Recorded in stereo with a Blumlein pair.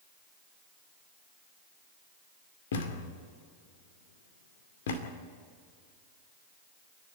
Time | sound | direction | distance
2.7 | a thud | 60° left | 2 m